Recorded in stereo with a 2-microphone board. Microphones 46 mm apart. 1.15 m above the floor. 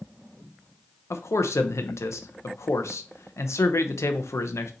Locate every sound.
1.1 s a man speaking: 80° left, 0.5 m